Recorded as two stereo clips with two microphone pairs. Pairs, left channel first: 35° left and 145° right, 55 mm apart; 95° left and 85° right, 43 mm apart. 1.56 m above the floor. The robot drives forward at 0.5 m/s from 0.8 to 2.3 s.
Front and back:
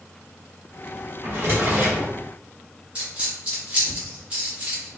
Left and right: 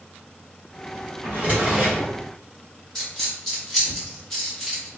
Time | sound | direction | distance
1.2 | a drawer | 120° right | 1.1 m
3.0 | a dropped coin | 175° left | 1.2 m